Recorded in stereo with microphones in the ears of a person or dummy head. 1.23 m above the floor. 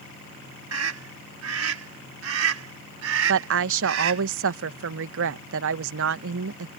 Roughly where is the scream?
Right.